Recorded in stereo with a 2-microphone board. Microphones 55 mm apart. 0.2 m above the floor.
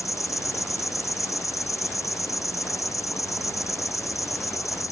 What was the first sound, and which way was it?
An insect, 75° left (ahead or behind).